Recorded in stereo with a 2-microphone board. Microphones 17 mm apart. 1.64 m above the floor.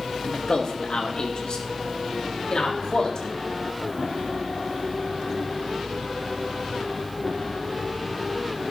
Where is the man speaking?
60° left (ahead or behind), 2 m; by 3.3 s 75° left (ahead or behind), 4 m.